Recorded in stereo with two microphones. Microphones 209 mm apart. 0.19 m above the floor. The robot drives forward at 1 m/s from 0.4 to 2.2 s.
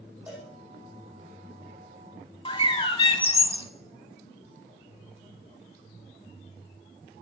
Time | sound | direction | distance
0.3 | a cowbell | 5° right (ahead or behind) | 4.5 m
2.5 | a bird | 25° left (ahead or behind) | 0.6 m